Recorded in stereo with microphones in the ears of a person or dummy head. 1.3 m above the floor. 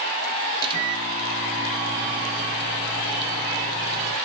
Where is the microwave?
30° right (ahead or behind), 1.5 m.